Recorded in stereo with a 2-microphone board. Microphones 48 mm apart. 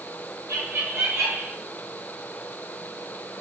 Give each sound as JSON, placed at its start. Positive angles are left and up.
{"t": 0.5, "sound": "laughter", "side_deg": -70, "distance_m": 4.5}